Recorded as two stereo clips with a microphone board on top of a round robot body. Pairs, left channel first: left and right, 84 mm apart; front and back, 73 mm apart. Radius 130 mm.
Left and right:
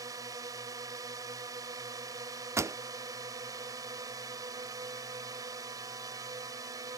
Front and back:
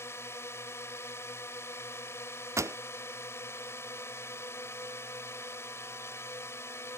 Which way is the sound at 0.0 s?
50° right.